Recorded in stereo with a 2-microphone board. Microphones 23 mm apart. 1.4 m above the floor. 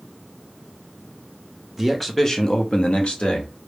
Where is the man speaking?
Centre (ahead or behind), 0.7 m; by 3.5 s 60° left (ahead or behind), 1.0 m.